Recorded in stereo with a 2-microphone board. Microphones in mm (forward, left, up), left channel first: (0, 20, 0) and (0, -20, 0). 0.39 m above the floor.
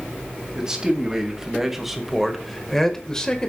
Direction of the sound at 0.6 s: 20° right (ahead or behind).